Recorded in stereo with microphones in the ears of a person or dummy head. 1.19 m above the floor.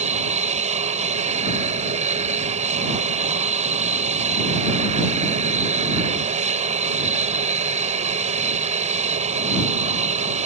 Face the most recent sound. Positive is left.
turn(degrees=-35)  # may be behind; listen again after turning